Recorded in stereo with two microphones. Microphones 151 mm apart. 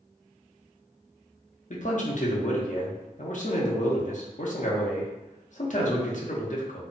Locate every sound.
1.7 s a man speaking: 60° left (ahead or behind), 0.7 m